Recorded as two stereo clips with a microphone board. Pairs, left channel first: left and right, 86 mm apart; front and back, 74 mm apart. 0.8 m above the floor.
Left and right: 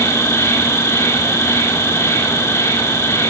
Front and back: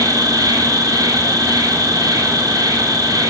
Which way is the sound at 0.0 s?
145° left.